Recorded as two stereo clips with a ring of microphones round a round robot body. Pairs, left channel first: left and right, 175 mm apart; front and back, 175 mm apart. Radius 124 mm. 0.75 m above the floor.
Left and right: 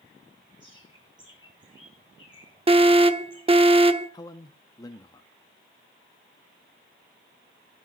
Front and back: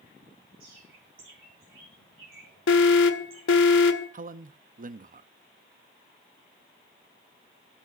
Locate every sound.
0.6 s a bird: 165° right, 8.5 m
2.7 s an alarm: 30° right, 1.2 m
4.1 s a man speaking: 160° left, 0.8 m